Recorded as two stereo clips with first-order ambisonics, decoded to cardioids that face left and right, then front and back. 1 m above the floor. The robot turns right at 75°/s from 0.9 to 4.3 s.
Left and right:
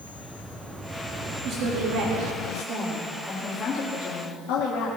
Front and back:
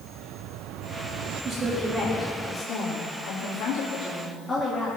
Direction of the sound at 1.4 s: 140° right.